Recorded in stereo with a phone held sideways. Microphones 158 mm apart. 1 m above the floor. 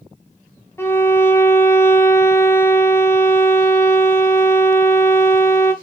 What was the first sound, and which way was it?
A violin, 15° left (ahead or behind).